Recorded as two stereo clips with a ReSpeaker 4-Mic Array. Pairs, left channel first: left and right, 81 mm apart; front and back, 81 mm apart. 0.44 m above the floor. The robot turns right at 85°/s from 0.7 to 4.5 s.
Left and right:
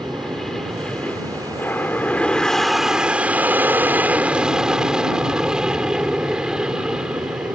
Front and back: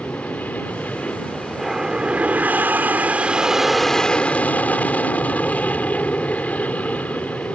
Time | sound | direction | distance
0.0 | an aircraft | 10° left | ?